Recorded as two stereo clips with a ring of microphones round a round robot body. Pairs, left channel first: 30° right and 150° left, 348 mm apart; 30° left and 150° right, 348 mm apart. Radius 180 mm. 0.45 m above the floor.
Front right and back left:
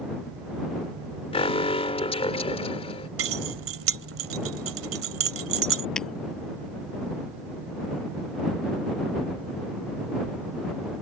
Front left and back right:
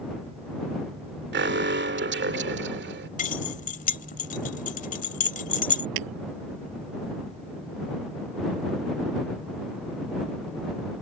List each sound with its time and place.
1.3 s an alarm: 100° right
3.2 s keys jangling: 100° left
6.0 s breaking glass: 120° right